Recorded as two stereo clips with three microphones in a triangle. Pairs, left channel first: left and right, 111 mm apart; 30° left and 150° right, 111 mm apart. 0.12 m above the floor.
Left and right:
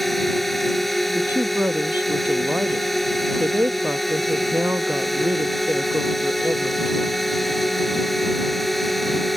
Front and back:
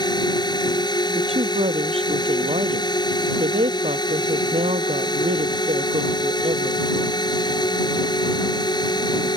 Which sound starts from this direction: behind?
A woman speaking, at 1.1 s.